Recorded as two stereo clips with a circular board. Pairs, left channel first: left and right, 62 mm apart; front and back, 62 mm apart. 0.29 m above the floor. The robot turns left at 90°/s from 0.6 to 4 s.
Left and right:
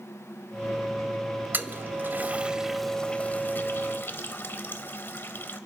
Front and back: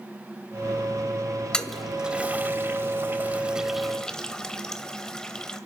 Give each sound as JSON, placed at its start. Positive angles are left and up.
{"t": 1.5, "sound": "a toilet flushing", "azimuth_deg": -65, "distance_m": 0.7}